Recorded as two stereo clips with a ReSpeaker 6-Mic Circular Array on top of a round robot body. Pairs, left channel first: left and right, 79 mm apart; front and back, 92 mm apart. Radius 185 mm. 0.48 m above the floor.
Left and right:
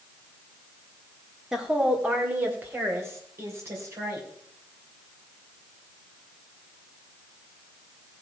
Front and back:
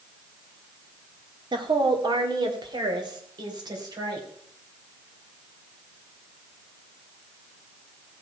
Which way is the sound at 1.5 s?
175° right.